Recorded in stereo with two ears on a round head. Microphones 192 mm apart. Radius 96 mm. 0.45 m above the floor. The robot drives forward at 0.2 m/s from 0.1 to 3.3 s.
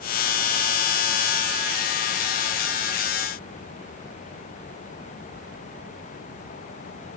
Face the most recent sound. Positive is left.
No sound to turn to.